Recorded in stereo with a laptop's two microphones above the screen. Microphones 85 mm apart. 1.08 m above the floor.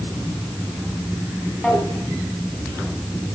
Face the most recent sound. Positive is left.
turn(degrees=5)  # may be behind; listen again after turning